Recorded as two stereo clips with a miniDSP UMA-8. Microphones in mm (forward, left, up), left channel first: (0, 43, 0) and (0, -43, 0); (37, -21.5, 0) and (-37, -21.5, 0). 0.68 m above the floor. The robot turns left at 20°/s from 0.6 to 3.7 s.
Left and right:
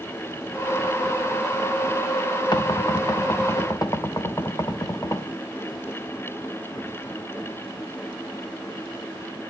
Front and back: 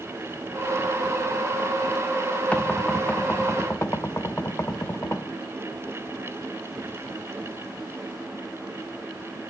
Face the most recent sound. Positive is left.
turn(degrees=45)